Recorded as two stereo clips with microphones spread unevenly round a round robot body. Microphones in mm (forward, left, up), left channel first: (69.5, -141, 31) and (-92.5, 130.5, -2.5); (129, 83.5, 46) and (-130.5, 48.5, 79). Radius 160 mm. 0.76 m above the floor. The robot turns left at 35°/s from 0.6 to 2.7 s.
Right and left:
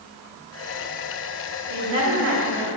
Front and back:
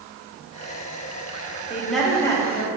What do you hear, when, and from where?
1.7 s a woman speaking: 105° left, 1.7 m; by 2.7 s 70° left, 1.7 m